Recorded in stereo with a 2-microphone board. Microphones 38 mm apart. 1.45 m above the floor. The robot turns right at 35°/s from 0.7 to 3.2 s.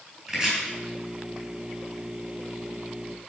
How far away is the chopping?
About 4 m.